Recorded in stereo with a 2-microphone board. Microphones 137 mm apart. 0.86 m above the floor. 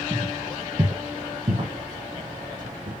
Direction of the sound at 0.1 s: 15° right (ahead or behind).